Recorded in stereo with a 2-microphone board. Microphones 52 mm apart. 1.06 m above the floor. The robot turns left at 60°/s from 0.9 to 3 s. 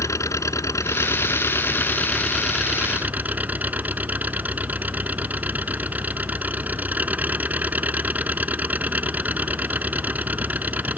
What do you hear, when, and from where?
0.0 s an engine running: 95° left; by 11.0 s 30° right